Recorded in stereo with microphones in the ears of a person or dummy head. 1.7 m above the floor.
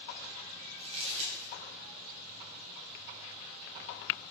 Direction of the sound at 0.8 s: 25° right (ahead or behind).